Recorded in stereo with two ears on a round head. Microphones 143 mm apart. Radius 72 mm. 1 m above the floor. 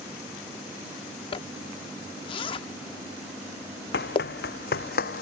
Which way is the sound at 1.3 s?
30° left (ahead or behind).